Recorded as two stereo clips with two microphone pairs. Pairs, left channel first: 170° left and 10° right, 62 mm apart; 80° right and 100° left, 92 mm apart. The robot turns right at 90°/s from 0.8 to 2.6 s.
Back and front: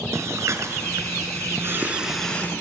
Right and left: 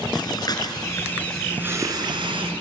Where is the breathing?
45° right, 3 m; by 2.5 s 110° left, 3 m.